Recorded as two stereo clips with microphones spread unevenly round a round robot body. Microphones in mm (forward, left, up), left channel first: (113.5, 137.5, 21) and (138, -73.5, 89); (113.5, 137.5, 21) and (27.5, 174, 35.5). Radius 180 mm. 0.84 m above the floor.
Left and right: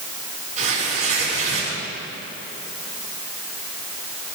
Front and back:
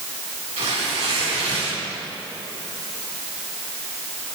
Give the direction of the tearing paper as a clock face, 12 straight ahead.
5 o'clock.